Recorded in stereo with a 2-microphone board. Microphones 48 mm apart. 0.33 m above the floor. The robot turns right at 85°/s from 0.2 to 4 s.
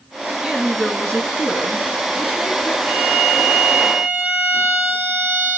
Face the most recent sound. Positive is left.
turn(degrees=-55)